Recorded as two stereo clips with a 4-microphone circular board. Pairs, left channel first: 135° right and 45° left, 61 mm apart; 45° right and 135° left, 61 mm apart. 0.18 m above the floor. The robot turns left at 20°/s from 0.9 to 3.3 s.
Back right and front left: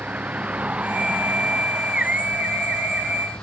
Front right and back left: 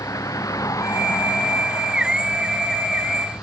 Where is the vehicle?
20° right; by 3.4 s 85° right.